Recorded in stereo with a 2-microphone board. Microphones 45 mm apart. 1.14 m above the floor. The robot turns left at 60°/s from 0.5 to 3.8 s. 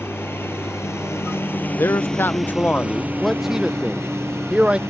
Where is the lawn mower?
115° left; by 4.9 s 85° right.